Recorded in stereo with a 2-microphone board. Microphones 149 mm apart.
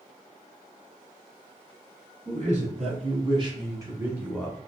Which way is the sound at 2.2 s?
55° right (ahead or behind).